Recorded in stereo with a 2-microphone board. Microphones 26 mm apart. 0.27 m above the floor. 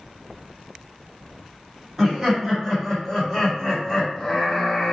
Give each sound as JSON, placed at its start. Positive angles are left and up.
{"t": 2.0, "sound": "laughter", "side_deg": -15, "distance_m": 1.7}